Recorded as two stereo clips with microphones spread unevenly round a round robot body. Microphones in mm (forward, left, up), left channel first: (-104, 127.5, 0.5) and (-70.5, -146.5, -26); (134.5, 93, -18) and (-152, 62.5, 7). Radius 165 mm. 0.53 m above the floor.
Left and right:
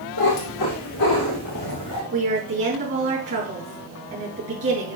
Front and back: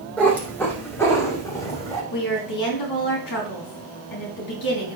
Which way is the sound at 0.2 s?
90° left.